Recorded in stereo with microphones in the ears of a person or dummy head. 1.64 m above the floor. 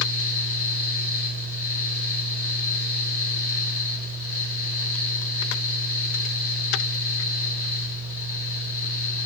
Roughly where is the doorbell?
I don't hear a doorbell.